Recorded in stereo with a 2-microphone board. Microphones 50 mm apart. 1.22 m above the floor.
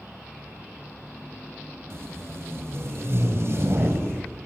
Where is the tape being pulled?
60° right (ahead or behind), 3.5 m.